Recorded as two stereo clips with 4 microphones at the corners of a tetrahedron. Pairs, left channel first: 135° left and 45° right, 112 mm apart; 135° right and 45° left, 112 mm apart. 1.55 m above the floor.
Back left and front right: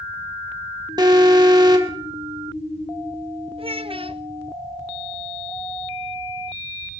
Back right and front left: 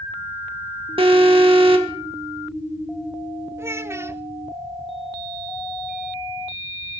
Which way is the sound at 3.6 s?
20° right.